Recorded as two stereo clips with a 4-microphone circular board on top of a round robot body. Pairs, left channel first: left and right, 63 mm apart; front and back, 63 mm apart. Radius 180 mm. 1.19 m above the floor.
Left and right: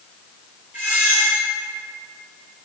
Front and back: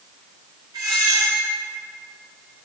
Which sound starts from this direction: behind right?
A squeak, at 0.7 s.